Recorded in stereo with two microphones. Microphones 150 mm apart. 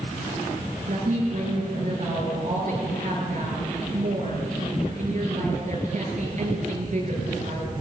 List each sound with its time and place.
0.9 s a woman speaking: 55° right (ahead or behind), 9 m